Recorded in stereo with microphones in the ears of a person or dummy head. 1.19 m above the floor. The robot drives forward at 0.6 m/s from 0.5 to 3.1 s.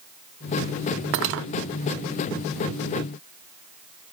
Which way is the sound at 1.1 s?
55° right (ahead or behind).